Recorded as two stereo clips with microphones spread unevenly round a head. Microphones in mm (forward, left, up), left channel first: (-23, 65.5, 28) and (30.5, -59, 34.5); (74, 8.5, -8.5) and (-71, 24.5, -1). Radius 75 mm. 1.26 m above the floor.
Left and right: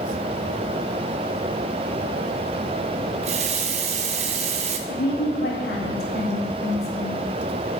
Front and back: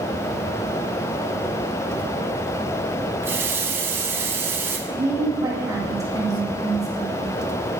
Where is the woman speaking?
105° left, 1.6 m.